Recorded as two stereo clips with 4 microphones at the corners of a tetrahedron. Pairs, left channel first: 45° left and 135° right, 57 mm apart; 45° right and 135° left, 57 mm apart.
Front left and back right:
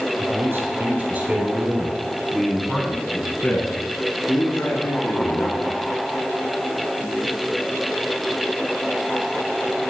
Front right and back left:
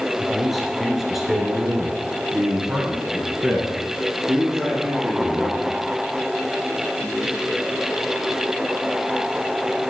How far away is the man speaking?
About 2 m.